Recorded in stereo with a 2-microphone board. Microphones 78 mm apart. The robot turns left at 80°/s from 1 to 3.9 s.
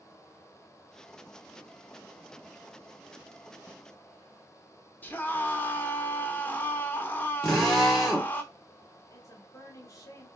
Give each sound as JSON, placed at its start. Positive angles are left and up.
{"t": 5.0, "sound": "a scream", "side_deg": 20, "distance_m": 0.9}
{"t": 7.4, "sound": "a drill", "side_deg": 5, "distance_m": 1.8}
{"t": 9.1, "sound": "a woman speaking", "side_deg": 45, "distance_m": 1.6}